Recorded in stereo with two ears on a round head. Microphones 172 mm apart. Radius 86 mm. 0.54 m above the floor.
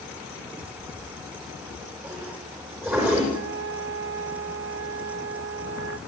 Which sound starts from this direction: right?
A flute, at 3.3 s.